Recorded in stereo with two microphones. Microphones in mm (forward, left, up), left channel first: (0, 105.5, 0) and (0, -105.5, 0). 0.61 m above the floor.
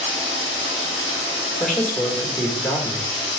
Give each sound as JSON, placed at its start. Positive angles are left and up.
{"t": 0.0, "sound": "running water", "side_deg": -35, "distance_m": 2.0}
{"t": 1.6, "sound": "a man speaking", "side_deg": 5, "distance_m": 1.6}